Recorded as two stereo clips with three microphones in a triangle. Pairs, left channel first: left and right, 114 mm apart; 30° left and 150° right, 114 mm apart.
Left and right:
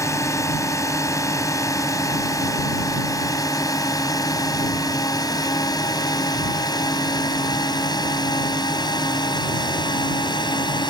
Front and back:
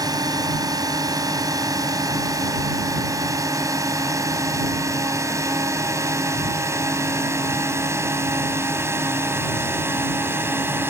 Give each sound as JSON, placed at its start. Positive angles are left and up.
{"t": 0.0, "sound": "a drone", "azimuth_deg": 155}